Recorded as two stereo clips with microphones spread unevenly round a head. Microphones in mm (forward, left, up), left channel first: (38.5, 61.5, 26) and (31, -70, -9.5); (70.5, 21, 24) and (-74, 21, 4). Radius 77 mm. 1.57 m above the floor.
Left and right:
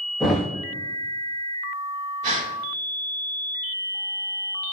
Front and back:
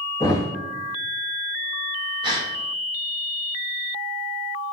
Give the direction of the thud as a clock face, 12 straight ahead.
11 o'clock.